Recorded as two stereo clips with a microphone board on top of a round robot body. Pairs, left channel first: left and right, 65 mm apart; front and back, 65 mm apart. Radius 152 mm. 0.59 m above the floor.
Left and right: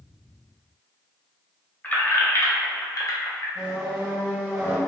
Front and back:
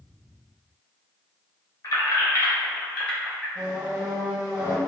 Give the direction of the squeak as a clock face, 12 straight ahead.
6 o'clock.